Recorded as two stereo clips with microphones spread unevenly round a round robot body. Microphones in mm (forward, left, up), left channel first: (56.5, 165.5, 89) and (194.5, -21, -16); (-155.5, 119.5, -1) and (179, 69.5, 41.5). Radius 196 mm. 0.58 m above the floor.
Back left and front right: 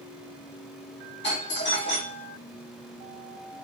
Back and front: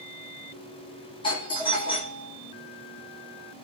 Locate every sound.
1.2 s a doorbell: 165° left, 1.2 m